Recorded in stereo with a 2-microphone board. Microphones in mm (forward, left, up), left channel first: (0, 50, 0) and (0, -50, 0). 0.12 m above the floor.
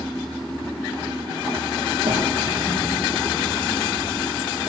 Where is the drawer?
65° right (ahead or behind), 5.5 m.